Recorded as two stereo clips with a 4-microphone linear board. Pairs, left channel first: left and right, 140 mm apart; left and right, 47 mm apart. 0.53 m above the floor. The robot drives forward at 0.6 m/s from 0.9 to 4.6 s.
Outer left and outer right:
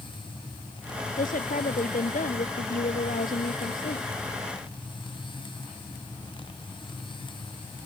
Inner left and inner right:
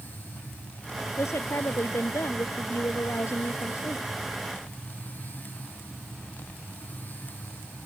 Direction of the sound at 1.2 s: 75° left (ahead or behind).